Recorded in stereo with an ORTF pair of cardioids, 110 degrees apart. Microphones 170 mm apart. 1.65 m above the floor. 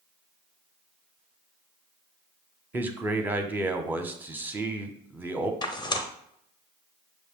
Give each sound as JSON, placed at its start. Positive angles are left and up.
{"t": 2.7, "sound": "a man speaking", "azimuth_deg": -10, "distance_m": 0.7}
{"t": 5.6, "sound": "tearing paper", "azimuth_deg": 25, "distance_m": 0.7}